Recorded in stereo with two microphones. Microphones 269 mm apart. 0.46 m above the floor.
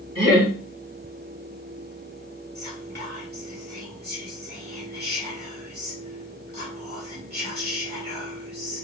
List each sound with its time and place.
0.1 s laughter: 45° right (ahead or behind), 1.5 m
2.5 s whispering: 35° right (ahead or behind), 1.9 m